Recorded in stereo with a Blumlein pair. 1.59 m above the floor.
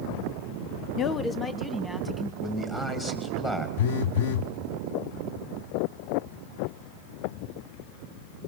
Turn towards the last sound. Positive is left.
turn(degrees=50)